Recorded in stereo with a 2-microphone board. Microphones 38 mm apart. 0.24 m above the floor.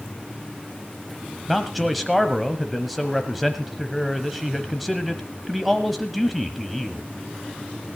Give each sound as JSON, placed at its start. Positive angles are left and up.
{"t": 1.5, "sound": "a man speaking", "side_deg": 0, "distance_m": 1.0}